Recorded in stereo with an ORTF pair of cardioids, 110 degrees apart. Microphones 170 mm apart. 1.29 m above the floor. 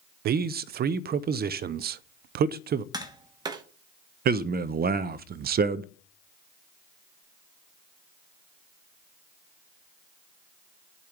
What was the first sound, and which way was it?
A man speaking, 65° right.